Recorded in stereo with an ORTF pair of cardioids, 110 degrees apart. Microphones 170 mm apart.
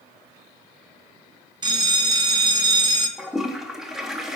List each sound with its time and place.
1.6 s a bell: 25° right, 1.0 m
3.2 s a toilet flushing: straight ahead, 1.0 m